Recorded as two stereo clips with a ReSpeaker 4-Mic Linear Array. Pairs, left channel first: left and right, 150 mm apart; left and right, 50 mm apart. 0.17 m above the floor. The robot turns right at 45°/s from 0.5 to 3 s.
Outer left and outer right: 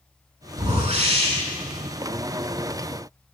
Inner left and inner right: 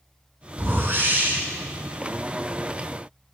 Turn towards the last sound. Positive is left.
turn(degrees=25)